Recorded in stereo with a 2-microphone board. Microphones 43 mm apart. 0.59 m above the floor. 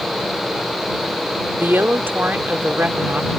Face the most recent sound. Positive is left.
turn(degrees=-55)  # may be behind; listen again after turning